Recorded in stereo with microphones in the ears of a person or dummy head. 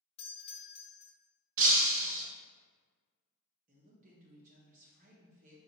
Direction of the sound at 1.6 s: 45° right (ahead or behind).